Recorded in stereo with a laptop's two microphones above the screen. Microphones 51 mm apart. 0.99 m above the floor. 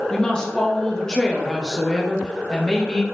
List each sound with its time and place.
0.1 s a woman speaking: 15° left (ahead or behind), 0.7 m